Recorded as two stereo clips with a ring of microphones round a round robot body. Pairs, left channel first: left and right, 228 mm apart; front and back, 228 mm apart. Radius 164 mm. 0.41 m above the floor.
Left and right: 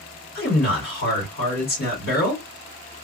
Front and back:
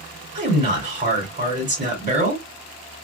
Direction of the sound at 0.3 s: 130° left.